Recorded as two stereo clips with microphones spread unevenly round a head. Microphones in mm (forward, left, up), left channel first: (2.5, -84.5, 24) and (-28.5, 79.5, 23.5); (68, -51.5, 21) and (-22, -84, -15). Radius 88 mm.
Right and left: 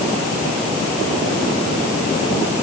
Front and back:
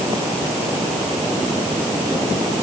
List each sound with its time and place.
Only background noise.